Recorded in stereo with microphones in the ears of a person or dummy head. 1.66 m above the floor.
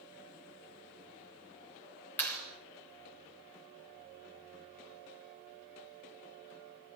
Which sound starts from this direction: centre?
A clap, at 2.2 s.